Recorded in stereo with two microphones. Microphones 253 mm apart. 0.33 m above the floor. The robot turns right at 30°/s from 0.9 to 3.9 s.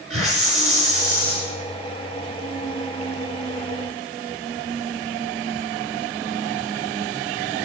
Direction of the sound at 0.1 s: 60° right (ahead or behind).